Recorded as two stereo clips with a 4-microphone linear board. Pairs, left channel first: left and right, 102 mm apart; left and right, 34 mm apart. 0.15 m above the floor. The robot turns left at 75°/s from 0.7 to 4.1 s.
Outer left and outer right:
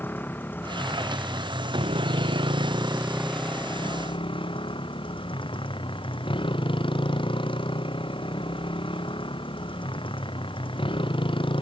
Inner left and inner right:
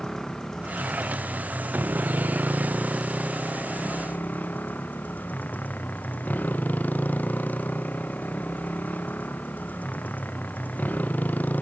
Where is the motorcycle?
20° left; by 11.6 s 125° left.